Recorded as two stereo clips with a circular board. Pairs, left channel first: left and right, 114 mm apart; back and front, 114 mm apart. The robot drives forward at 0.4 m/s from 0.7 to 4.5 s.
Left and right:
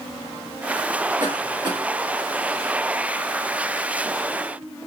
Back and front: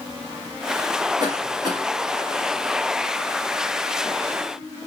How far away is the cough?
About 3 m.